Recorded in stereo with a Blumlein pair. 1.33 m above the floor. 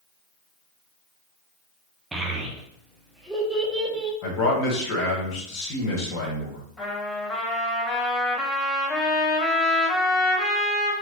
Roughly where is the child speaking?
Ahead.